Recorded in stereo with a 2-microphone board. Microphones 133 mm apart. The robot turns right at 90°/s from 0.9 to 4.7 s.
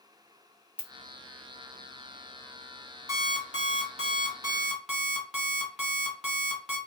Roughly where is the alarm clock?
Behind right.